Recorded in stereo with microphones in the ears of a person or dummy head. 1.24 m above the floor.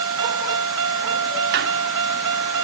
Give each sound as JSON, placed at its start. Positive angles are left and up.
{"t": 0.0, "sound": "a vehicle", "side_deg": -70}
{"t": 1.5, "sound": "a squeak", "side_deg": -65}